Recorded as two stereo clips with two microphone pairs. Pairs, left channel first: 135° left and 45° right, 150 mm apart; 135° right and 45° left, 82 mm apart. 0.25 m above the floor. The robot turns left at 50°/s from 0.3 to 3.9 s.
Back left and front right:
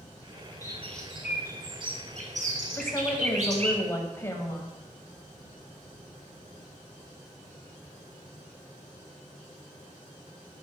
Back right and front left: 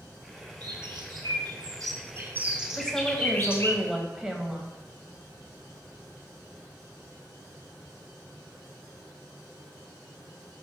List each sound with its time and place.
0.6 s a bird: 65° left, 1.3 m; by 3.8 s 90° right, 1.3 m
2.8 s a woman speaking: 160° left, 1.0 m; by 4.7 s 105° left, 1.0 m